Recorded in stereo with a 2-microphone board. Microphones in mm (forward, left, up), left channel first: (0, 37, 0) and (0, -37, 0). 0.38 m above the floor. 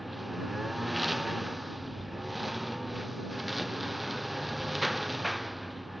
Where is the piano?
I don't hear a piano.